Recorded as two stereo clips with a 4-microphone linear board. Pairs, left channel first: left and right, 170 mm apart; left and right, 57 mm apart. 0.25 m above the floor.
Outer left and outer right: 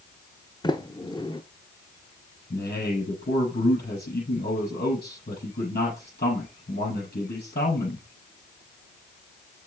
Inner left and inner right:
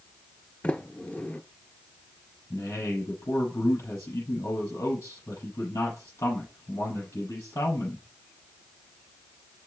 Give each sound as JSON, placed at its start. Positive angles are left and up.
{"t": 0.6, "sound": "a sliding door", "side_deg": 25, "distance_m": 0.8}
{"t": 2.5, "sound": "a man speaking", "side_deg": 70, "distance_m": 6.0}